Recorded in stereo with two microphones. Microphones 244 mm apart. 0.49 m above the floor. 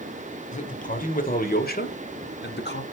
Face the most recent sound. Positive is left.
turn(degrees=45)  # may be behind; listen again after turning